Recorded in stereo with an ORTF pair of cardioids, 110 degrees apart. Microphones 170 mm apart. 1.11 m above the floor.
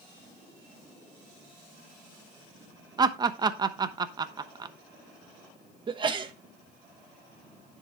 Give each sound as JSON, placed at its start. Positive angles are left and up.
{"t": 3.0, "sound": "laughter", "azimuth_deg": -25, "distance_m": 0.9}
{"t": 5.9, "sound": "a sneeze", "azimuth_deg": -30, "distance_m": 1.2}